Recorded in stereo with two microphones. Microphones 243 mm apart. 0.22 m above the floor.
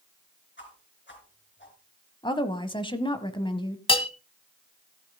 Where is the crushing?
No crushing in this recording.